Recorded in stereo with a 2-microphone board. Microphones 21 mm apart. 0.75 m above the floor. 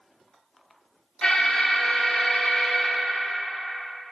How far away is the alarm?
About 1.6 m.